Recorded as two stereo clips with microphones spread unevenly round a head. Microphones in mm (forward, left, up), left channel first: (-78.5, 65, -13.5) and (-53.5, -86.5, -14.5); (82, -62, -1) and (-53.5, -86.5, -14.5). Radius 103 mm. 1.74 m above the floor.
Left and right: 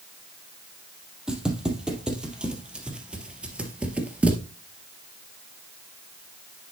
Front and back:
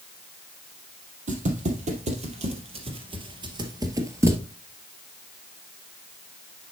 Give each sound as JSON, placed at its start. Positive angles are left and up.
{"t": 1.3, "sound": "footsteps", "azimuth_deg": -165, "distance_m": 2.5}